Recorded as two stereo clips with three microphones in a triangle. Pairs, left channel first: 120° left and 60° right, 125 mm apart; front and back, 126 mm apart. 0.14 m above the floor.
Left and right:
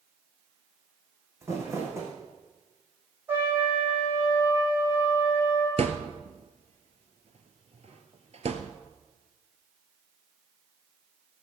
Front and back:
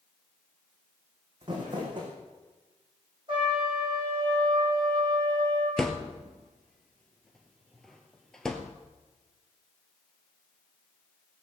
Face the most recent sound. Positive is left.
turn(degrees=-85)